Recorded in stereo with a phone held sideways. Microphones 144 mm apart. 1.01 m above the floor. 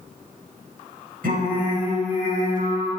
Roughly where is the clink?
No clink in this recording.